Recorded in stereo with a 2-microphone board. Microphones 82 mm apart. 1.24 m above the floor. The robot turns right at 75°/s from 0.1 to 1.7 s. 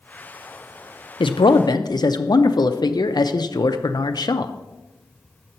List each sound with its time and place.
1.2 s a man speaking: 85° left, 0.5 m; by 4.5 s 125° left, 0.5 m